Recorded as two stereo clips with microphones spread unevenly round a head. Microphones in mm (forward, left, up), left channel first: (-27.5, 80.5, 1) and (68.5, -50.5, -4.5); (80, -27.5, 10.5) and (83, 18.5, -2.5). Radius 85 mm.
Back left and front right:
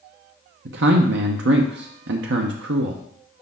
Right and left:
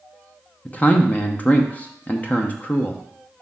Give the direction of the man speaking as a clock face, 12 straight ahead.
1 o'clock.